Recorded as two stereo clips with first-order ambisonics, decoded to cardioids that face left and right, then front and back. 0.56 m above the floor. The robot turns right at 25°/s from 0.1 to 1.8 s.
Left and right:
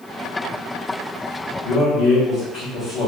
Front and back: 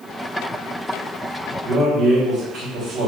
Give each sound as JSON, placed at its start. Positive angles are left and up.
{"t": 1.6, "sound": "a man speaking", "azimuth_deg": 125, "distance_m": 1.8}